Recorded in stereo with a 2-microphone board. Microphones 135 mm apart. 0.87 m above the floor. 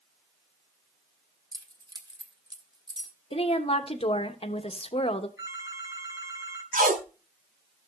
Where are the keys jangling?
30° right (ahead or behind), 1.6 m.